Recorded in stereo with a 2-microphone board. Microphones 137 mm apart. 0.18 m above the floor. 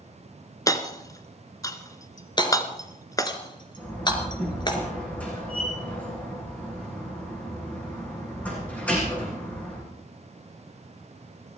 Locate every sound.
0.7 s hammering: 25° left (ahead or behind), 1.1 m
2.4 s hammering: 35° left (ahead or behind), 2 m
3.8 s a door slam: 10° left (ahead or behind), 8 m